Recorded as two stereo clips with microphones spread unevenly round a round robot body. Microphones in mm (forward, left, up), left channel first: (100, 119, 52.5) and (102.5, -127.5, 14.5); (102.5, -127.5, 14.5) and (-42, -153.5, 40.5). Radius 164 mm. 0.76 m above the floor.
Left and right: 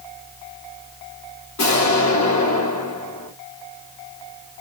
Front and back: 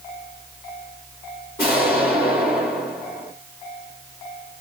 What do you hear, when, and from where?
1.6 s an explosion: 85° left, 3.5 m